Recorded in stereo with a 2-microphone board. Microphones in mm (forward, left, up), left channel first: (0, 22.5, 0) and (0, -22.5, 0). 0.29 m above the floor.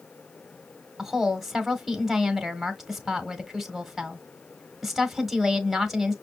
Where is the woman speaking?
5° right (ahead or behind), 1.4 m.